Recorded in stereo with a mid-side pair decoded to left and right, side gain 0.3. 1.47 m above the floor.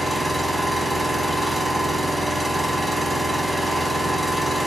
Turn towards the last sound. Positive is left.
turn(degrees=-5)